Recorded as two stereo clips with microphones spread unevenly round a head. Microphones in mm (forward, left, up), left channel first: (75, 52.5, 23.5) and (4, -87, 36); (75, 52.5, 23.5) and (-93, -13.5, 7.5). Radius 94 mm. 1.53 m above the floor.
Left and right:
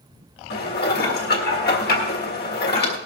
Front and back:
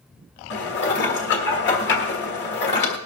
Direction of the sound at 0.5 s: 40° left.